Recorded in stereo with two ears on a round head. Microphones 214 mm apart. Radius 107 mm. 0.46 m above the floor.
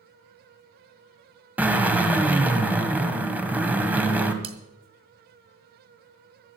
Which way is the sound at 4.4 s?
25° right (ahead or behind).